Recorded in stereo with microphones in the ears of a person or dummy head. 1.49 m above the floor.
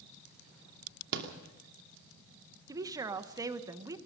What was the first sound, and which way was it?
A rattle, 70° right (ahead or behind).